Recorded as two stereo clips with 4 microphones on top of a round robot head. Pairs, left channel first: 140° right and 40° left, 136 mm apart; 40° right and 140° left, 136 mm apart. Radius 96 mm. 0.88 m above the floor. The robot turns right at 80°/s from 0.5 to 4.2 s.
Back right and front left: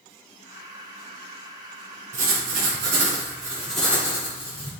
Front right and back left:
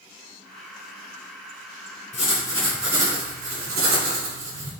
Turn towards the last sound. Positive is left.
turn(degrees=165)